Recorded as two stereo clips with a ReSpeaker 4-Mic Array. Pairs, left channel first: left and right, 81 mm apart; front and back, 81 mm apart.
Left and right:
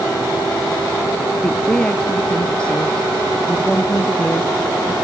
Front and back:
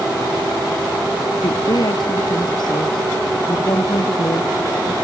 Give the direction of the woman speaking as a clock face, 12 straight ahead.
12 o'clock.